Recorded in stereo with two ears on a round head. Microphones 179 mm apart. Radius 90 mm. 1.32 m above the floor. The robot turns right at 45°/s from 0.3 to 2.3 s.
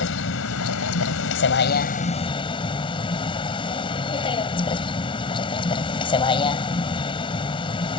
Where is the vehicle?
65° left; by 8.0 s 155° left.